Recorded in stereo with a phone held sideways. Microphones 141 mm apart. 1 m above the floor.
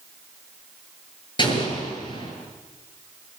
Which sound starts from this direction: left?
An explosion, at 1.4 s.